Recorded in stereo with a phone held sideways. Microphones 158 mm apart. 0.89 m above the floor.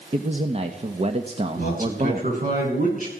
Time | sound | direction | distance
0.1 | a man speaking | 45° right (ahead or behind) | 1.1 m
1.6 | a man speaking | 70° right (ahead or behind) | 8 m